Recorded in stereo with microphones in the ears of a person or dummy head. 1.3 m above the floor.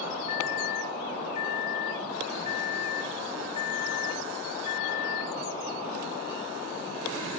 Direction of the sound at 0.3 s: 40° left (ahead or behind).